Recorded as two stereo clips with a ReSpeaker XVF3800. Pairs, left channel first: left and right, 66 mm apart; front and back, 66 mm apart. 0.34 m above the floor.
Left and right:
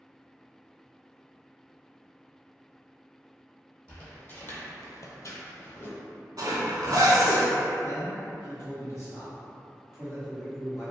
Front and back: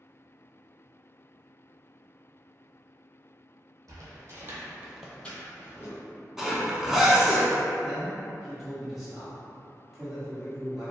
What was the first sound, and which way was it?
Footsteps, 160° left.